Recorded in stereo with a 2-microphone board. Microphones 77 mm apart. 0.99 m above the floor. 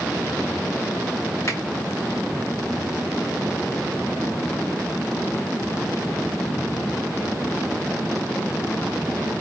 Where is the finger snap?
45° left (ahead or behind), 1.9 m.